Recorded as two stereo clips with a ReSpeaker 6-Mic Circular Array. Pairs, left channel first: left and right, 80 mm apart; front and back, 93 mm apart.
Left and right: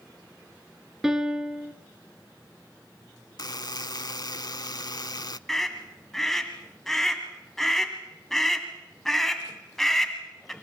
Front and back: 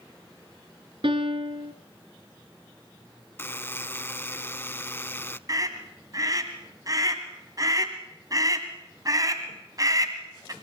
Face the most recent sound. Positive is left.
turn(degrees=175)